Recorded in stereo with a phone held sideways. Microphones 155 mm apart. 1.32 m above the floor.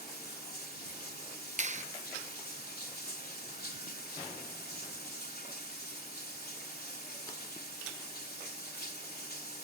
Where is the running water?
85° left.